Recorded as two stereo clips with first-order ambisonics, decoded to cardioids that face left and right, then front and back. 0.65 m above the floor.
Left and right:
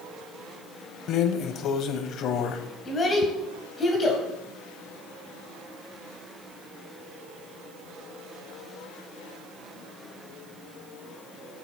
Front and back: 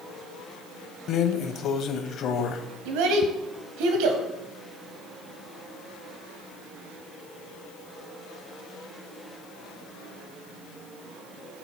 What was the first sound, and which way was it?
A drawer, 45° left.